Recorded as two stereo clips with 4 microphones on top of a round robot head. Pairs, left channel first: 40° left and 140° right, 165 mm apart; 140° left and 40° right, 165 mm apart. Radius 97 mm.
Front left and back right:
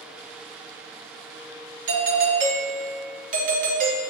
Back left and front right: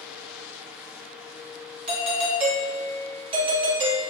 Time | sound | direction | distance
1.9 | a doorbell | 100° right | 0.6 m